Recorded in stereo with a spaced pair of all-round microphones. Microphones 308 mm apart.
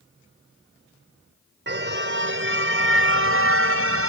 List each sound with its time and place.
1.7 s a car horn: 35° right (ahead or behind); by 4.1 s 45° right (ahead or behind)